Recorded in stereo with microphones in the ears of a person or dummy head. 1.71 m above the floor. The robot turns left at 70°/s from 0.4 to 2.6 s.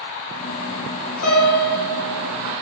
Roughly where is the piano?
Left.